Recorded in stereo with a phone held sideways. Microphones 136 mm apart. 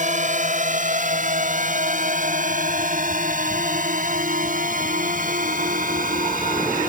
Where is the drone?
65° right (ahead or behind); by 6.9 s 80° right.